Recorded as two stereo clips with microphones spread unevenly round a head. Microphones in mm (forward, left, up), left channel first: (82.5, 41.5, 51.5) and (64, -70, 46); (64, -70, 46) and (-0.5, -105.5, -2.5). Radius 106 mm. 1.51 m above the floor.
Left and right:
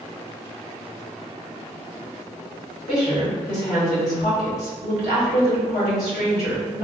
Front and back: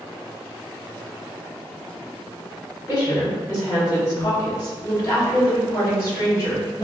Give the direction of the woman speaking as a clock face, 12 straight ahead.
9 o'clock.